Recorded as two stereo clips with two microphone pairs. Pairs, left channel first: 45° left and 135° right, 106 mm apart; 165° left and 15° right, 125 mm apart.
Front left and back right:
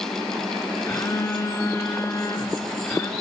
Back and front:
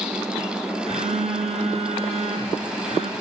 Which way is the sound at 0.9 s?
15° right.